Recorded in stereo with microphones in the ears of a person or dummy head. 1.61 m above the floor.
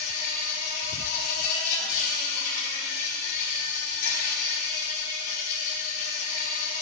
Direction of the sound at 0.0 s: 45° left (ahead or behind).